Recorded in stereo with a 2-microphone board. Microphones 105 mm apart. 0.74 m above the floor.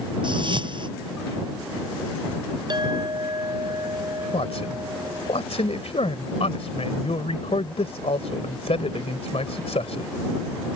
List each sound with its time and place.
0.2 s a whoosh: 50° right (ahead or behind)
2.7 s a clink: 45° right (ahead or behind)
4.3 s a man speaking: 80° left